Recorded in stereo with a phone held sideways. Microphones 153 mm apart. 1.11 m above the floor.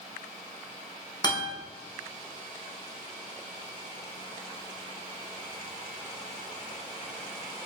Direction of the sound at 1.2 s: 30° left (ahead or behind).